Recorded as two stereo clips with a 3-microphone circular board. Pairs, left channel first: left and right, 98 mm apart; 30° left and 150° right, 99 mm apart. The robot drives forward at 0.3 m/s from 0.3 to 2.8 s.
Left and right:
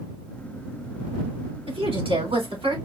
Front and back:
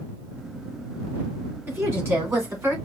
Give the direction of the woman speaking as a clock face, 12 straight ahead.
3 o'clock.